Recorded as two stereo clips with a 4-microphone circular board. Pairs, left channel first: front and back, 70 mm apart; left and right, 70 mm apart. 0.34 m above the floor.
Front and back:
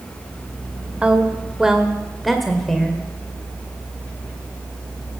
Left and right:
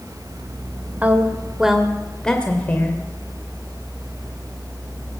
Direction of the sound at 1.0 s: 125° right.